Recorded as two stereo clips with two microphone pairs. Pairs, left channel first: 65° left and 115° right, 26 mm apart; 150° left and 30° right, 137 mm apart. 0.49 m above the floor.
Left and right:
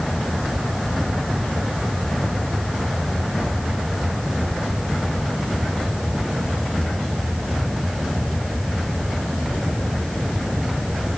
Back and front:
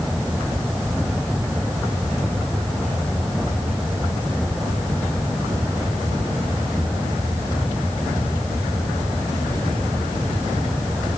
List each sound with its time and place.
Only background noise.